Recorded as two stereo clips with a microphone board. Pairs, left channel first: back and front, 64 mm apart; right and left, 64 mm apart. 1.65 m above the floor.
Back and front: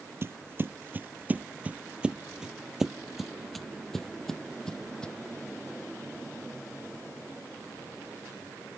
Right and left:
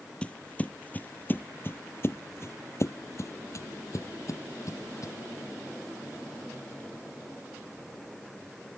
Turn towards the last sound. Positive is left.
turn(degrees=-105)